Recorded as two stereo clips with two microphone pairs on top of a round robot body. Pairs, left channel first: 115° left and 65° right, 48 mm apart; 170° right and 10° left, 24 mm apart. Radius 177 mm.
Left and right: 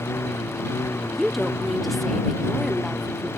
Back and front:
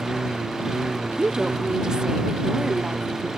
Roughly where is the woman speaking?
Ahead.